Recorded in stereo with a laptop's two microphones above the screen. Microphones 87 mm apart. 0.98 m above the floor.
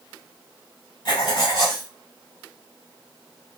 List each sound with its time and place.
1.1 s writing: 50° left (ahead or behind), 1.3 m